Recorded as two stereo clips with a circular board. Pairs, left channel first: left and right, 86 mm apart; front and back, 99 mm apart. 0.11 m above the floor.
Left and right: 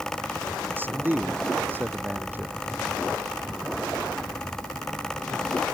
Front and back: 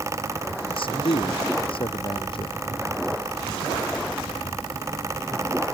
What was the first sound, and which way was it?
A man speaking, 25° right.